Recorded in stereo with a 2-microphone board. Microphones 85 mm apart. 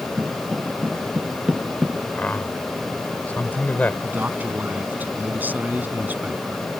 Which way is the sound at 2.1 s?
20° left (ahead or behind).